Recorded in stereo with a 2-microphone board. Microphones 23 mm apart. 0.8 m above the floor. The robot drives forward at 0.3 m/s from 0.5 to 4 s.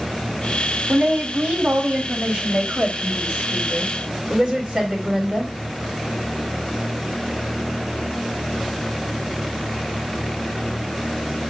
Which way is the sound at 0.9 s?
55° right (ahead or behind).